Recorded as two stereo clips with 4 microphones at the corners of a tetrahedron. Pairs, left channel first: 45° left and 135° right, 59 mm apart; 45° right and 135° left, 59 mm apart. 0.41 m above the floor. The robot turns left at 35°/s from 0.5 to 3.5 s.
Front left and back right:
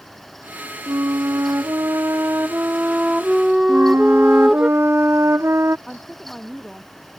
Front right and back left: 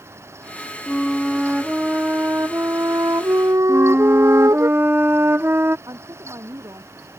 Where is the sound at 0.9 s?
125° right; by 4.7 s 140° left.